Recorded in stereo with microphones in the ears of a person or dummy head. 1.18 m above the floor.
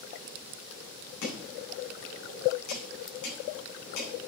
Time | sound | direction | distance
1.2 | chopping | 70° left (ahead or behind) | 4 m